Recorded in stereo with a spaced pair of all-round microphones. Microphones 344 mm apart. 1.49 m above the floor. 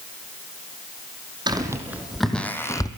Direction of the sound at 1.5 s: 10° right (ahead or behind).